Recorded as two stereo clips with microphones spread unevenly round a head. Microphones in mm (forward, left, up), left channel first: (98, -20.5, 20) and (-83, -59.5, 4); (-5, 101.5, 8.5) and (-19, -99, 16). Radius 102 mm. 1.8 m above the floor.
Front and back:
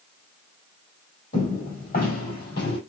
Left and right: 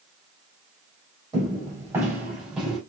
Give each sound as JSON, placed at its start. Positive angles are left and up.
{"t": 1.3, "sound": "footsteps", "azimuth_deg": -25, "distance_m": 3.5}